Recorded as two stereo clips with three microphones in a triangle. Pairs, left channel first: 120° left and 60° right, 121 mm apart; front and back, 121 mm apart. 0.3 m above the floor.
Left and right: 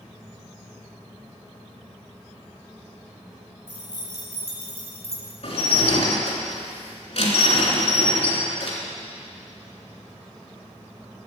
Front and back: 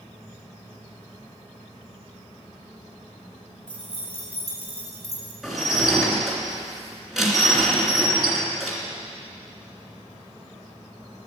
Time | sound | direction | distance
3.7 | keys jangling | 50° right | 5.5 m
5.4 | dishes clattering | 90° left | 3 m